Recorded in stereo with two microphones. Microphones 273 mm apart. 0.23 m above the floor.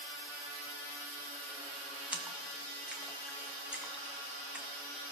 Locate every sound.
2.1 s a splash: 5° right (ahead or behind), 1.2 m